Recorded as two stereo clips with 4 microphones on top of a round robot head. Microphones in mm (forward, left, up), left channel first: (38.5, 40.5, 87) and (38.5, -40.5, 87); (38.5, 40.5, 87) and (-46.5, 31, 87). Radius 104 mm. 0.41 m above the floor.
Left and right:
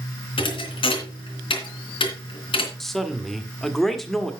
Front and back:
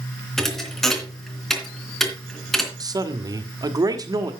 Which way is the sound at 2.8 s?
175° left.